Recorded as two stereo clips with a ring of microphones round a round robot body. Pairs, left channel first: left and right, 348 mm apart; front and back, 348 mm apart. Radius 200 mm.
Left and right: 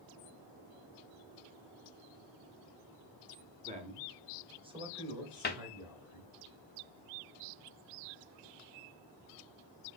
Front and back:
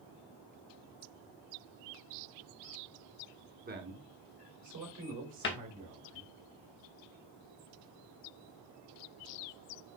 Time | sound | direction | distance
3.6 | a man speaking | 140° right | 1.1 m
5.4 | a cupboard door | 40° left | 0.8 m